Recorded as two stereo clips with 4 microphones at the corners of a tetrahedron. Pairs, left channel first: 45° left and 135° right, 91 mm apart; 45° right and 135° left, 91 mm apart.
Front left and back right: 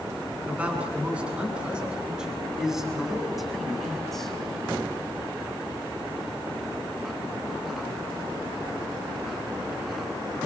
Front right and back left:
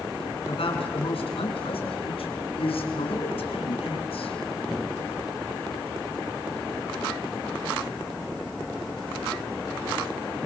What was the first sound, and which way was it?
A man speaking, 60° right.